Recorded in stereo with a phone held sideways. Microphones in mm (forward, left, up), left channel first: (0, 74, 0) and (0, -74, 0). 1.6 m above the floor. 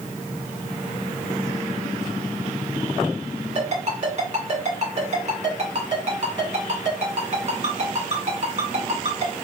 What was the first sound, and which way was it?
A ringtone, 50° right (ahead or behind).